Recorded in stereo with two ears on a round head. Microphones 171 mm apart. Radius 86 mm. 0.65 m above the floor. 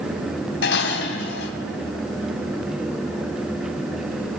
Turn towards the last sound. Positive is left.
turn(degrees=60)  # may be behind; listen again after turning